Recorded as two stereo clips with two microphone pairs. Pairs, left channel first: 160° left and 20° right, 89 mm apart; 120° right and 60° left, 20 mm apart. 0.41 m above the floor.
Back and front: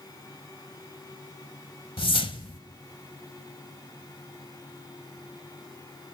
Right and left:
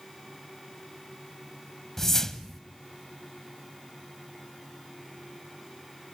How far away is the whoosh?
About 0.9 m.